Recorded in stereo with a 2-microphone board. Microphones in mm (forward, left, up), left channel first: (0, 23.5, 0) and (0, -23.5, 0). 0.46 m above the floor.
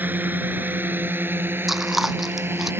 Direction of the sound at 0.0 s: 40° right (ahead or behind).